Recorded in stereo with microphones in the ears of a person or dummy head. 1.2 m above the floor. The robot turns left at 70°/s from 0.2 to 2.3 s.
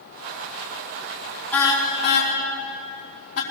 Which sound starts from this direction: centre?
A car horn, at 1.5 s.